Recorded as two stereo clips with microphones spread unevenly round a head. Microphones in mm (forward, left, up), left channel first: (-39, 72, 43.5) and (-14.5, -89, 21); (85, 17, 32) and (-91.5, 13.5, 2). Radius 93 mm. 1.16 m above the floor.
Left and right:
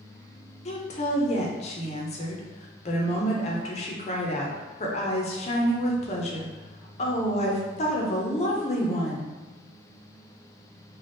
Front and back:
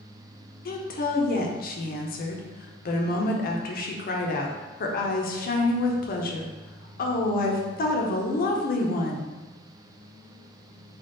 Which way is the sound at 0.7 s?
45° left.